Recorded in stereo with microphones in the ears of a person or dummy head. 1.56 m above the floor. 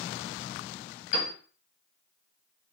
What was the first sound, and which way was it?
A piano, 45° left (ahead or behind).